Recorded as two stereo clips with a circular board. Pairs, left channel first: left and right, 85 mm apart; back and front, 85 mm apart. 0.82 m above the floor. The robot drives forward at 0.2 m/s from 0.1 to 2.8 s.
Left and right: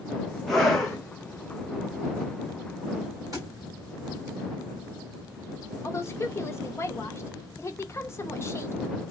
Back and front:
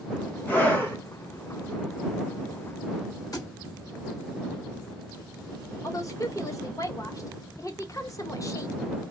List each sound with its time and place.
0.5 s a scream: 165° left, 1.0 m; by 1.0 s 170° left, 1.1 m
3.3 s a thud: 135° right, 1.3 m
5.8 s a woman speaking: 140° left, 0.6 m